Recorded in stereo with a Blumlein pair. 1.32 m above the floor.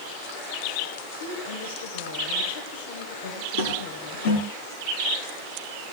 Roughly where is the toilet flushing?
Ahead left.